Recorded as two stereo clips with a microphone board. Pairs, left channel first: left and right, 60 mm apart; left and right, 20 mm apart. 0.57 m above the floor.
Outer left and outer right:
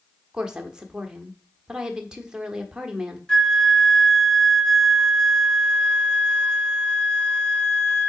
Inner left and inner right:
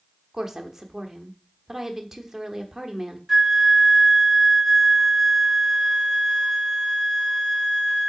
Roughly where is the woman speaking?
Centre.